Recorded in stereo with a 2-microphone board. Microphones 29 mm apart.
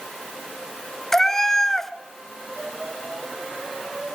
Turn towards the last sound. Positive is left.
turn(degrees=15)  # may be behind; listen again after turning